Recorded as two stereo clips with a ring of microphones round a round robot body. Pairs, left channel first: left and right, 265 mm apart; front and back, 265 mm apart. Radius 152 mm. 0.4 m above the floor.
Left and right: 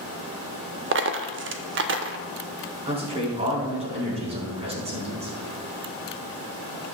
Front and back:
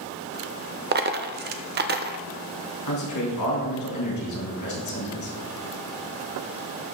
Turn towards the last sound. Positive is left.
turn(degrees=-25)